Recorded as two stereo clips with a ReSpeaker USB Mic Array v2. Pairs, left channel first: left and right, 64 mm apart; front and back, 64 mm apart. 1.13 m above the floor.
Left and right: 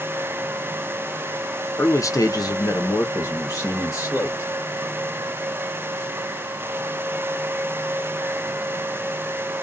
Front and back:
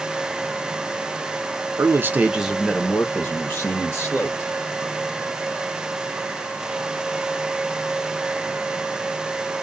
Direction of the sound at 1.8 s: 140° left.